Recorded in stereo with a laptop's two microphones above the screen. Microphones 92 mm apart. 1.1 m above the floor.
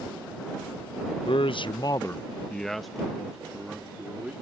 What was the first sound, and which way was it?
A man speaking, 65° left (ahead or behind).